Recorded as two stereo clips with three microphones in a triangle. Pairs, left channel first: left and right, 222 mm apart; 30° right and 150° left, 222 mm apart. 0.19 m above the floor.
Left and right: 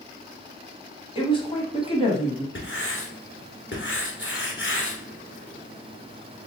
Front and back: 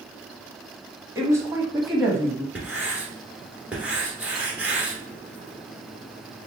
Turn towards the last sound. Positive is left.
turn(degrees=70)